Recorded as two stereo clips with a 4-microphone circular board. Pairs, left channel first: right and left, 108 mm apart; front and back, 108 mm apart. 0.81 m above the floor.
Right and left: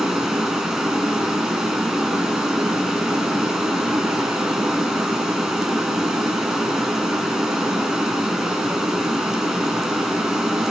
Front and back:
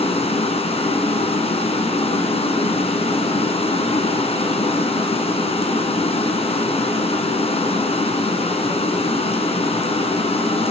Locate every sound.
0.0 s running water: 5° left, 3 m